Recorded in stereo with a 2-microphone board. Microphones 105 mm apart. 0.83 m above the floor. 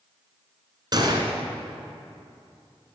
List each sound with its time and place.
0.9 s a gunshot: 45° right (ahead or behind), 1.4 m